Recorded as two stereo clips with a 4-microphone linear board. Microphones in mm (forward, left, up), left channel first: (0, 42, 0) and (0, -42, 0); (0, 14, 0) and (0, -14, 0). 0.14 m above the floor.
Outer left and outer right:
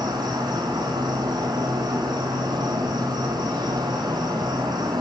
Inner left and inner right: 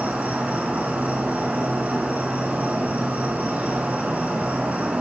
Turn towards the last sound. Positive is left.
turn(degrees=-50)  # may be behind; listen again after turning